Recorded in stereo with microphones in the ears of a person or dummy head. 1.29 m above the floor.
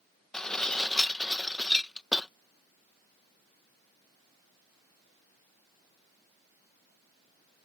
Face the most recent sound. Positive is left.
turn(degrees=5)  # may be behind; listen again after turning